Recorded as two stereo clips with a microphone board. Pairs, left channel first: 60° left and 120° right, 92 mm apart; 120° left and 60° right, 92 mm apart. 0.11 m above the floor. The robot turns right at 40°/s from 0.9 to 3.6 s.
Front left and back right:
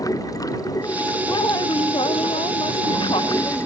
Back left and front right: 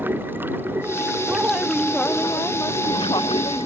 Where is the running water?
10° left; by 3.7 s 115° left.